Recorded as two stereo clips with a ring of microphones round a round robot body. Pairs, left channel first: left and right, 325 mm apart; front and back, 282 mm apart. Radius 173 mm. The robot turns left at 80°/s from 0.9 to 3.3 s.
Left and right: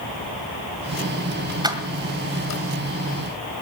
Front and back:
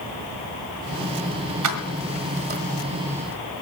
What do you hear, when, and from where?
1.6 s keys jangling: 165° right, 1.7 m; by 2.6 s 115° left, 1.7 m